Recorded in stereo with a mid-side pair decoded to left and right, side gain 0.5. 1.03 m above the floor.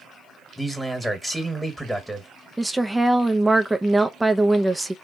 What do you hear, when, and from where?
0.6 s a man speaking: 5° right, 1.4 m
2.6 s a woman speaking: 10° right, 0.5 m